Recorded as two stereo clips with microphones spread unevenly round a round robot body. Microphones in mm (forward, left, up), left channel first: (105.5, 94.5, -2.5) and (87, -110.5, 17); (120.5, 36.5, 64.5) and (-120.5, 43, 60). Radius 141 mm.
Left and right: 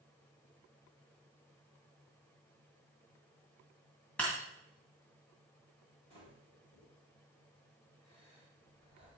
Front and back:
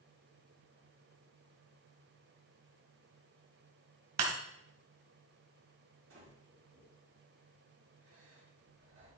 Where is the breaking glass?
170° left, 2 m.